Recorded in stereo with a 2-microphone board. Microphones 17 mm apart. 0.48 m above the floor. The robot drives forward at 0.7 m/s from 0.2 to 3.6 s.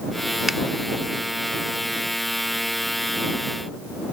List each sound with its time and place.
0.5 s a finger snap: 20° right (ahead or behind); by 0.6 s 25° right (ahead or behind)